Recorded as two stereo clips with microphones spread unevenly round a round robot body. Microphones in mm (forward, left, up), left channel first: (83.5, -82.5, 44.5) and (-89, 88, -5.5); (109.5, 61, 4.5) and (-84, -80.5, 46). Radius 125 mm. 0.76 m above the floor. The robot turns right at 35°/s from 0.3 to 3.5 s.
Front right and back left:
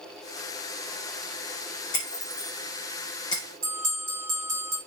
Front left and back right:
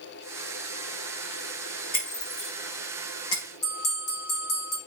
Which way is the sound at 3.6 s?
75° left.